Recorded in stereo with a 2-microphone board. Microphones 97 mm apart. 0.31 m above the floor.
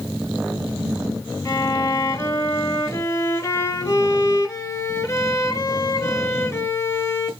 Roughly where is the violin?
Left.